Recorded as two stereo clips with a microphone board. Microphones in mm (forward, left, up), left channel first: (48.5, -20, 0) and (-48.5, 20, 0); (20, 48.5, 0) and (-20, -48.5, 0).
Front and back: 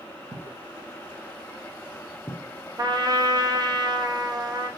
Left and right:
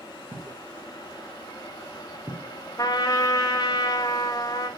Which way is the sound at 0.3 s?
155° right.